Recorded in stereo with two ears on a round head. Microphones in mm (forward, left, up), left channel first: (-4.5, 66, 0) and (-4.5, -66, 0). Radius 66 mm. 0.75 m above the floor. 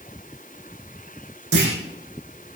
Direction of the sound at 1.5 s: 85° right.